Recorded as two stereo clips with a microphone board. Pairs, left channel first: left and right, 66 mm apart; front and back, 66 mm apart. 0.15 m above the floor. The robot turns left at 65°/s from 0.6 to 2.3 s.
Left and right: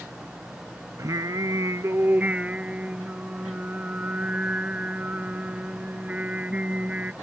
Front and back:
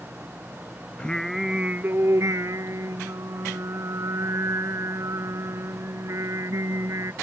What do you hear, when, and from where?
1.0 s singing: 70° right; by 7.1 s 155° right